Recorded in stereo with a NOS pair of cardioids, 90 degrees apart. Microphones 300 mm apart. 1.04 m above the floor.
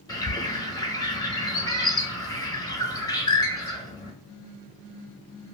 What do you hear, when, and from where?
0.1 s a bird: 15° left, 0.8 m